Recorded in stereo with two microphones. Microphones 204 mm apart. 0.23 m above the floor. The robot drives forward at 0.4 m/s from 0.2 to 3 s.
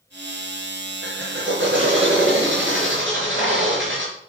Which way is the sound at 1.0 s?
65° right (ahead or behind).